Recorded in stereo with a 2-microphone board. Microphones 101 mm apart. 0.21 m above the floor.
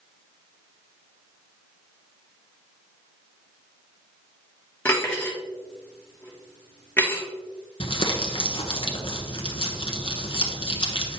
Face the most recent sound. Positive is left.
turn(degrees=60)  # may be behind; listen again after turning